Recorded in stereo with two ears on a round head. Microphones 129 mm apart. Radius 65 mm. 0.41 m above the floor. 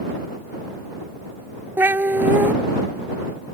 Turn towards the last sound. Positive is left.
turn(degrees=-15)  # may be behind; listen again after turning